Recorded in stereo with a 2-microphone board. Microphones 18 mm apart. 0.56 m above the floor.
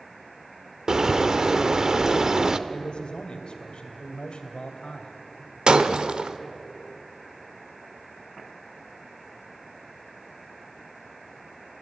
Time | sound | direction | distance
0.9 | a bird | 35° right (ahead or behind) | 0.8 m
2.7 | a man speaking | 65° left (ahead or behind) | 2.5 m
5.7 | breaking glass | 60° right (ahead or behind) | 1.0 m